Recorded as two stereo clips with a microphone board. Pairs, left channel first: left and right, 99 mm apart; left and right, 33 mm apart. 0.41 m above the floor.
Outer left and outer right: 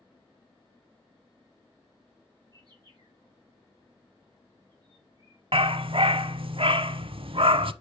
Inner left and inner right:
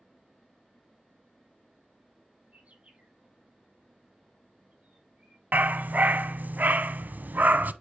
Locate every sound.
2.5 s a bird: 40° right (ahead or behind), 6.5 m
5.5 s a dog barking: 65° right (ahead or behind), 0.7 m